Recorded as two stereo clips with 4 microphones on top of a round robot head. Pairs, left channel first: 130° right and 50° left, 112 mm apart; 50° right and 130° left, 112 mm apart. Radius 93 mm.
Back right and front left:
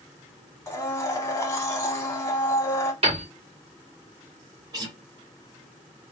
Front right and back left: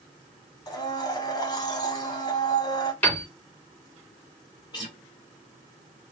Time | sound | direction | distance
0.7 | a blender | 80° right | 1.1 m
3.0 | a piano | 25° left | 2.5 m
4.7 | a guitar | straight ahead | 1.8 m